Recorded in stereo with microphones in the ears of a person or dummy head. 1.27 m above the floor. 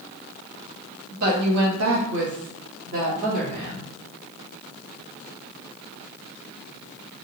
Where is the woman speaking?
35° right (ahead or behind), 0.7 m.